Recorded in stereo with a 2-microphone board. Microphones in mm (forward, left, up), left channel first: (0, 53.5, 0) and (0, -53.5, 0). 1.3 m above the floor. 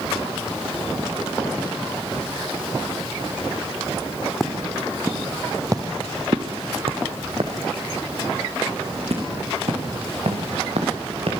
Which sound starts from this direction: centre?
Footsteps, at 4.4 s.